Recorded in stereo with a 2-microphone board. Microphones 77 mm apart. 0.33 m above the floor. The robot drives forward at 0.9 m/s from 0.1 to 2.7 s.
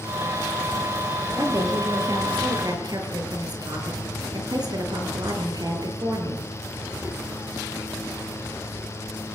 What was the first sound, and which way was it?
A woman speaking, 45° right (ahead or behind).